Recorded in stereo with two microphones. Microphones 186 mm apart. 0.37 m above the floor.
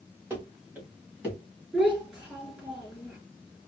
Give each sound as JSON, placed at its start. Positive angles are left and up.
{"t": 0.3, "sound": "running footsteps", "side_deg": -10, "distance_m": 1.9}
{"t": 1.7, "sound": "a child speaking", "side_deg": -5, "distance_m": 3.0}